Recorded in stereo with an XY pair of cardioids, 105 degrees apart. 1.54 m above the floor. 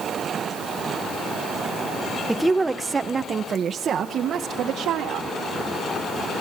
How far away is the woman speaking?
About 1.4 m.